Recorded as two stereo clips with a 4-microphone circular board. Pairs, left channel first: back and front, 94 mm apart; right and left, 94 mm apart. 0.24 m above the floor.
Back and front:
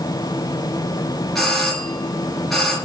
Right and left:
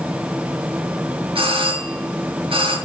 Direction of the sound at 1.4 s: 90° left.